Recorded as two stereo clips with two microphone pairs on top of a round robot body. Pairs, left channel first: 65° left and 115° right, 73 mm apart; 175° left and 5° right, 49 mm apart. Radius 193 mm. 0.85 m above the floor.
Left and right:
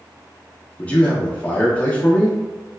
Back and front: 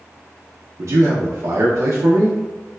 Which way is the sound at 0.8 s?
10° right.